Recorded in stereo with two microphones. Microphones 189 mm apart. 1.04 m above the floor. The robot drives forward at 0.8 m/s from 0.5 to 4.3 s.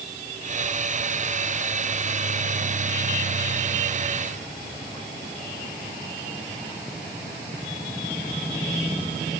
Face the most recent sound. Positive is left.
No sound to turn to.